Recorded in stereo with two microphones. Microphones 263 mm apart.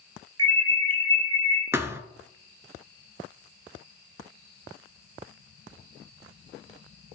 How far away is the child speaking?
I don't hear a child speaking.